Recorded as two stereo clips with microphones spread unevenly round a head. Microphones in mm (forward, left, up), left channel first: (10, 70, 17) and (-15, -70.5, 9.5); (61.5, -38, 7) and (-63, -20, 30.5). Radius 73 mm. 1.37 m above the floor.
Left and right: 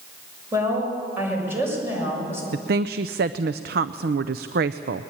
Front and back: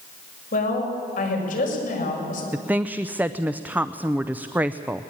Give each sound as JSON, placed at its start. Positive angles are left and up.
{"t": 0.5, "sound": "a woman speaking", "azimuth_deg": -25, "distance_m": 6.5}
{"t": 2.5, "sound": "a woman speaking", "azimuth_deg": -105, "distance_m": 0.6}